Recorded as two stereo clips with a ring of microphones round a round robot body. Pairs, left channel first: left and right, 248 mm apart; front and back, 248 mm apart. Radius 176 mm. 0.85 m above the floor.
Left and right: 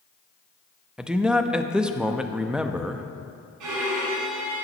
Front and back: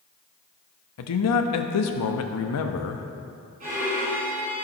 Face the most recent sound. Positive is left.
turn(degrees=-110)